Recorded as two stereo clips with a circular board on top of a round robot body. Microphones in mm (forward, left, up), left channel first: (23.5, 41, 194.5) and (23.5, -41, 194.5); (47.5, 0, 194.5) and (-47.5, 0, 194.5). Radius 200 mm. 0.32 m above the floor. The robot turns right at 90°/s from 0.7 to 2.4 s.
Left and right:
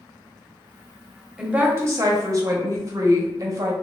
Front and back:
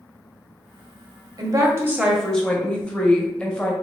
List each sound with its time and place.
1.4 s a woman speaking: 165° right, 1.1 m; by 3.7 s 75° right, 1.1 m